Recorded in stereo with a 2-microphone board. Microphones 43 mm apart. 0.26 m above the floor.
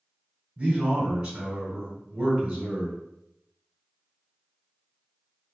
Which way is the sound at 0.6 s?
15° right (ahead or behind).